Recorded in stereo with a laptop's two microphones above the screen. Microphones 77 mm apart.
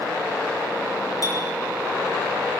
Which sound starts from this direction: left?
A clink, at 1.2 s.